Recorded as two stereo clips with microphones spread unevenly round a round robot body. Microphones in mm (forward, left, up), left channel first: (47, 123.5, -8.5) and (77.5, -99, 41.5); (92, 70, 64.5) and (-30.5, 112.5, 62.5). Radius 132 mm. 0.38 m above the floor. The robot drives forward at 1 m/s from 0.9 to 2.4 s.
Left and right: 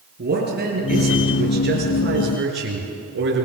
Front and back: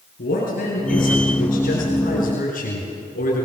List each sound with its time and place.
0.2 s a man speaking: 40° right, 7 m; by 3.5 s 50° right, 5.5 m